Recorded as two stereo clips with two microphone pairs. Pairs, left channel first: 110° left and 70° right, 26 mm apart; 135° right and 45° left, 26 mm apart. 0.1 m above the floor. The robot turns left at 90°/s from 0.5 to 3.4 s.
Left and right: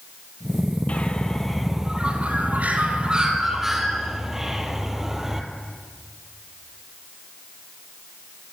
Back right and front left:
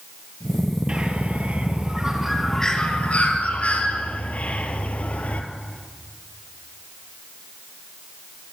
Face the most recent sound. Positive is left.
turn(degrees=-140)